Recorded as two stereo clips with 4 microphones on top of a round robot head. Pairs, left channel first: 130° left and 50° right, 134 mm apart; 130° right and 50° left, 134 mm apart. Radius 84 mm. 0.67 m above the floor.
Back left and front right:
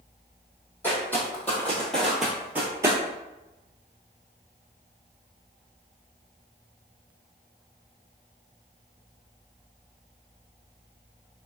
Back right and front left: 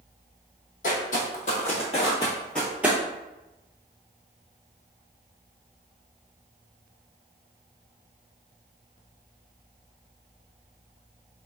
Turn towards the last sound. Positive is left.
turn(degrees=-5)